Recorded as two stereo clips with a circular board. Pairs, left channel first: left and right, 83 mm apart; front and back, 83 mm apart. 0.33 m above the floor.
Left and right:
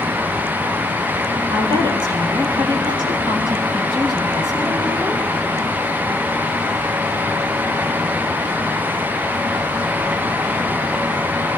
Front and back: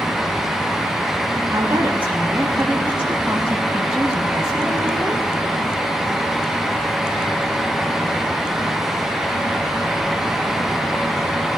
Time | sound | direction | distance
1.5 | a woman speaking | 110° right | 6 m